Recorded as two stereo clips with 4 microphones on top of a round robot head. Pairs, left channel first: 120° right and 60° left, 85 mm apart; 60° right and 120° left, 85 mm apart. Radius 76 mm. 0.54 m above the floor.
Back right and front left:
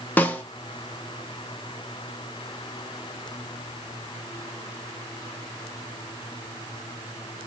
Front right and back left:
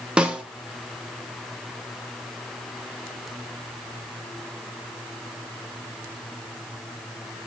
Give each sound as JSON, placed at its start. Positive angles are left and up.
{"t": 0.2, "sound": "a snare drum", "azimuth_deg": -170, "distance_m": 0.8}